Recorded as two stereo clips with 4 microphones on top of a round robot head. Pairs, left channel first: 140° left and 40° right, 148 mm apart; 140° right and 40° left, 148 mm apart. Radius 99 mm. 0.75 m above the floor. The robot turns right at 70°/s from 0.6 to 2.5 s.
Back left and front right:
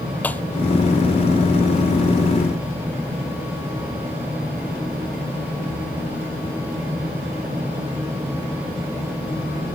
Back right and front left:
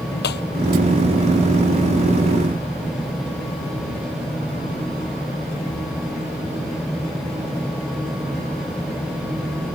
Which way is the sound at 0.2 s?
140° right.